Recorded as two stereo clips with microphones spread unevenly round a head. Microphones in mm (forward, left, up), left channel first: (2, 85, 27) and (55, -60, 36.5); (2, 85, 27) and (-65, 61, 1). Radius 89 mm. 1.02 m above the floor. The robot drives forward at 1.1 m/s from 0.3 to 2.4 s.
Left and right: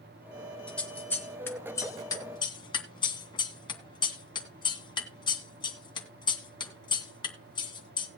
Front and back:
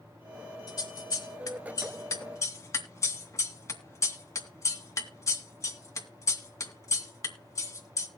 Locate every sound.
0.7 s scissors: 25° left, 4 m; by 8.1 s 50° left, 2.5 m